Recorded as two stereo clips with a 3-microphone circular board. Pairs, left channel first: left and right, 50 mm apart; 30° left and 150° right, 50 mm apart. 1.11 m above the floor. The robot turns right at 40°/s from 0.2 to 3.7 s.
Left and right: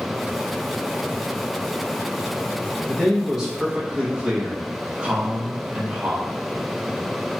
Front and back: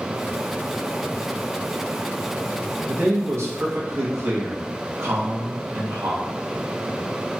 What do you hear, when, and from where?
2.9 s a man speaking: 170° left, 0.9 m; by 6.3 s 155° right, 0.9 m